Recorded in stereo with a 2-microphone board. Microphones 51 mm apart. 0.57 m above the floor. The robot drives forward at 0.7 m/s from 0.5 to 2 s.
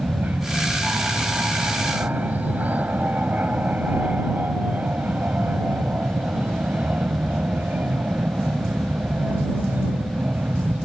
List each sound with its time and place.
0.0 s an aircraft: 30° right (ahead or behind)